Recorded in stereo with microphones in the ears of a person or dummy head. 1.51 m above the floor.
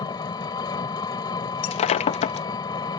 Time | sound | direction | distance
0.0 | an engine running | 25° left (ahead or behind) | ?
1.6 | breaking glass | 30° left (ahead or behind) | ?